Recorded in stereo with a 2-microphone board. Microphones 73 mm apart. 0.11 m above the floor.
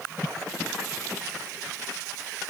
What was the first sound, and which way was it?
Only background noise.